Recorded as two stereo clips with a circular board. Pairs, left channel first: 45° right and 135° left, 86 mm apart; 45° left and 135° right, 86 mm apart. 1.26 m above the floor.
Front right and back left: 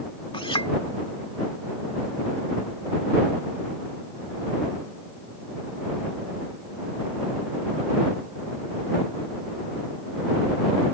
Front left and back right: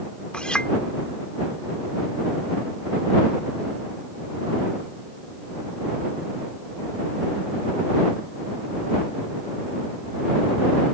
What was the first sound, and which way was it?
A clink, 35° right.